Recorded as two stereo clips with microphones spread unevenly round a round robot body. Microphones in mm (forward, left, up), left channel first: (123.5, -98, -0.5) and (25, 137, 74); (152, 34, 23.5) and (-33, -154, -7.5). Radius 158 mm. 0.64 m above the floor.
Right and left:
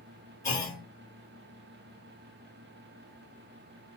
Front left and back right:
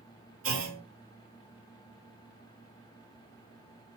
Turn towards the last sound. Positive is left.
turn(degrees=-135)